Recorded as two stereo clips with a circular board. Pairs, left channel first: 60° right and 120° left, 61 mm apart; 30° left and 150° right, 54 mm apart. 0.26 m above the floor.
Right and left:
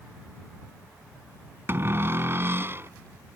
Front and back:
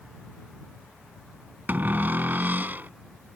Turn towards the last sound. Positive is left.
turn(degrees=165)